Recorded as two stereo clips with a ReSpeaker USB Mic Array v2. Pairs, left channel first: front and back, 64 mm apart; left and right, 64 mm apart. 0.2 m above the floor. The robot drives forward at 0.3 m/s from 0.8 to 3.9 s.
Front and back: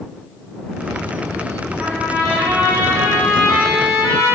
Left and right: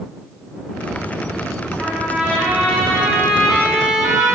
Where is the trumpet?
135° right, 1.1 m; by 4.4 s 165° right, 1.3 m.